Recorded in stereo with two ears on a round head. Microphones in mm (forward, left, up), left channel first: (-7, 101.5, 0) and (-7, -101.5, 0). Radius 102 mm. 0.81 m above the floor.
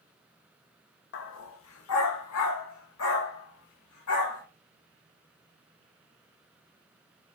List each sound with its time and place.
1.1 s a dog barking: 55° left (ahead or behind), 0.7 m; by 4.4 s 75° left (ahead or behind), 2.5 m